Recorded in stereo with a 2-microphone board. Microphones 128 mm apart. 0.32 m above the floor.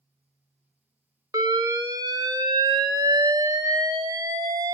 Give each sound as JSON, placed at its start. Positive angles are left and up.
{"t": 1.3, "sound": "an alarm", "side_deg": -30, "distance_m": 0.8}